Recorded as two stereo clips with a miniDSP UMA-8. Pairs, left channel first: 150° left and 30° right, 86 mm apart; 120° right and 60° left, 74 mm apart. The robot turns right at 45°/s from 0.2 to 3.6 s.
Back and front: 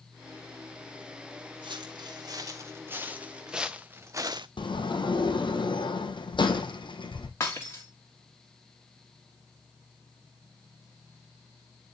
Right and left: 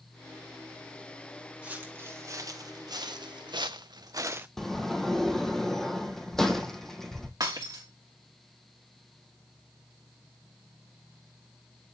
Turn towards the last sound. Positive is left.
turn(degrees=95)